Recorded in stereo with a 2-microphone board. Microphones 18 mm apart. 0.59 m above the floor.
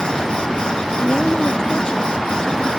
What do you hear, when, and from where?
1.0 s a woman speaking: 45° left (ahead or behind)